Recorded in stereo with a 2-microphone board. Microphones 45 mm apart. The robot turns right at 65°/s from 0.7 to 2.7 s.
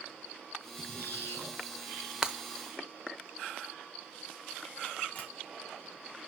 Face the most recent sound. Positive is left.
turn(degrees=35)  # may be behind; listen again after turning